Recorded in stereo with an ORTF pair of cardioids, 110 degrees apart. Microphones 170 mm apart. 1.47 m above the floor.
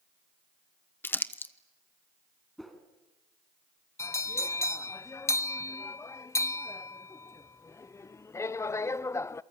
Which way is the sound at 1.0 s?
15° left.